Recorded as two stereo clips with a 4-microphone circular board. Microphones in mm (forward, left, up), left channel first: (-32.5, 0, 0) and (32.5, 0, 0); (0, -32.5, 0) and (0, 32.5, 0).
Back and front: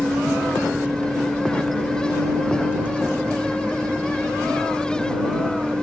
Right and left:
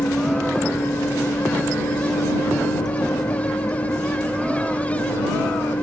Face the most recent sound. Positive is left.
turn(degrees=-75)